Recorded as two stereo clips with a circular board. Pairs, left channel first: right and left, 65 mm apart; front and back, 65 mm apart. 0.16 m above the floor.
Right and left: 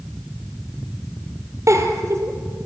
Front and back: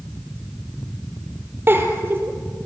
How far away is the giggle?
About 2.5 m.